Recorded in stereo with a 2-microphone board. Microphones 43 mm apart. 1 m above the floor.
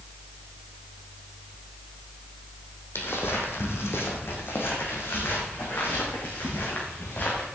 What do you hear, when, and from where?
3.0 s footsteps: 70° left (ahead or behind), 2.5 m; by 7.5 s 55° left (ahead or behind), 5 m